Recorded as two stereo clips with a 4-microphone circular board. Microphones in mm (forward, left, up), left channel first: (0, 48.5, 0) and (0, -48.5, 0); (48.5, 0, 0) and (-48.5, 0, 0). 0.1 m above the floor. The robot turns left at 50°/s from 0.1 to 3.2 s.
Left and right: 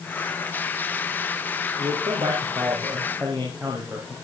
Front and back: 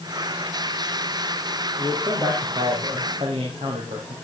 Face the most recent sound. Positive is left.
turn(degrees=-165)